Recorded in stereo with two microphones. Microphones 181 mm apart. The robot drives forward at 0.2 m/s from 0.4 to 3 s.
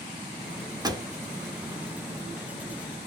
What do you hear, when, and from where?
0.8 s a pop: 20° right (ahead or behind), 0.5 m